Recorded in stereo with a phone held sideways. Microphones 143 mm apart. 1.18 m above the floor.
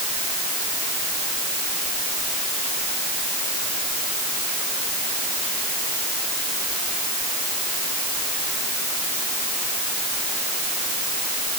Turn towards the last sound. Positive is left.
No sound to turn to.